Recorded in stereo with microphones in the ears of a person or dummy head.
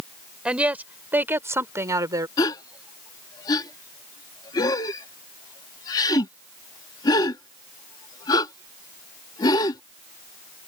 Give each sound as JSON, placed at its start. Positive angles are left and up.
{"t": 0.5, "sound": "a woman speaking", "side_deg": -5}
{"t": 2.4, "sound": "a gasp", "side_deg": 25}